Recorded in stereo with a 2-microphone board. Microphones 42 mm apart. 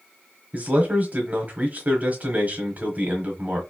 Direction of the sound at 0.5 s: 40° right (ahead or behind).